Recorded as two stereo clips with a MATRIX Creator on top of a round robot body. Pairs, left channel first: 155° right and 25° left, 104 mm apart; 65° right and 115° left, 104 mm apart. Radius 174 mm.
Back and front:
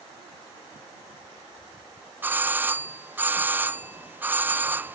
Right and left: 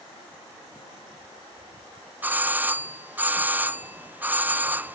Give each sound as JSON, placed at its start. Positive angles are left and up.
{"t": 2.2, "sound": "a doorbell", "azimuth_deg": 65}